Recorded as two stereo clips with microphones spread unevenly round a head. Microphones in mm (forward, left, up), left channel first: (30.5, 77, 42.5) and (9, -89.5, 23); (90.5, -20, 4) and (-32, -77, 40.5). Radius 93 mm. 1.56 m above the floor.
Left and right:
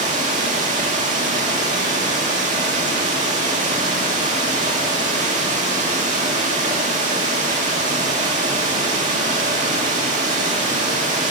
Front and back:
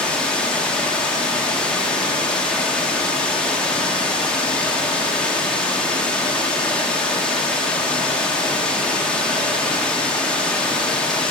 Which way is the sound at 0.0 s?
80° right.